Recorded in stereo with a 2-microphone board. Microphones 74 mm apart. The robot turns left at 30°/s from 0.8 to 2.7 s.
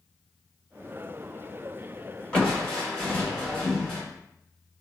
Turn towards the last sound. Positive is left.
turn(degrees=10)  # may be behind; listen again after turning